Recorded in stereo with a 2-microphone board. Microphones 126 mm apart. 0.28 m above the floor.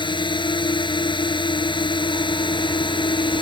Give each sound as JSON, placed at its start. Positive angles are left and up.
{"t": 0.0, "sound": "a drone", "side_deg": 40}